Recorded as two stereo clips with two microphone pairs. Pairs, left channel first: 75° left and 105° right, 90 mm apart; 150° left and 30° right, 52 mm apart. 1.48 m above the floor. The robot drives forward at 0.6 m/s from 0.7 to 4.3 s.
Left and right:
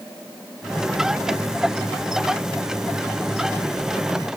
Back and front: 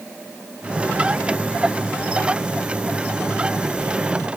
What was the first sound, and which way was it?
Only background noise.